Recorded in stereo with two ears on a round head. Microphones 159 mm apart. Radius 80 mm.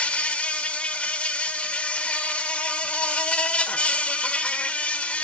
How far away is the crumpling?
No crumpling in this recording.